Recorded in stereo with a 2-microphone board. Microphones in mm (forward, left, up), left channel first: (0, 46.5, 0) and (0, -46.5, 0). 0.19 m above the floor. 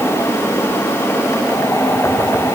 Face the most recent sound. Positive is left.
No sound to turn to.